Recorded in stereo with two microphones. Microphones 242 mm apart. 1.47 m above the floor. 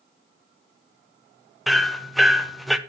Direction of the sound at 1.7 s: Centre (ahead or behind).